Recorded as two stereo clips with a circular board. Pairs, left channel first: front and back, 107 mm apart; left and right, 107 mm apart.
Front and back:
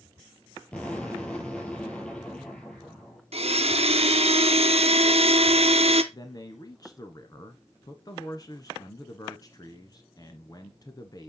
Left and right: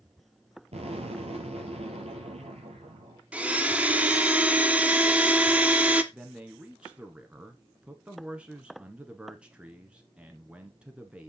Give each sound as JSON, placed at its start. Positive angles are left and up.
{"t": 0.7, "sound": "an explosion", "azimuth_deg": -80, "distance_m": 5.0}
{"t": 3.3, "sound": "a blender", "azimuth_deg": -170, "distance_m": 1.0}
{"t": 6.1, "sound": "a man speaking", "azimuth_deg": -15, "distance_m": 1.3}